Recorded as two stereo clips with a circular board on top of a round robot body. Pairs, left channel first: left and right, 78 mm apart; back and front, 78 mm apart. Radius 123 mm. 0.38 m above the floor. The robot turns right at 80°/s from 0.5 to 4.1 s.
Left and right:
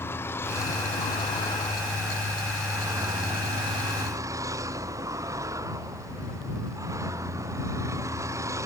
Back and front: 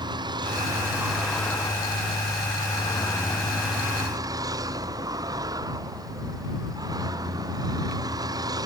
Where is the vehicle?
30° left; by 8.7 s 40° right.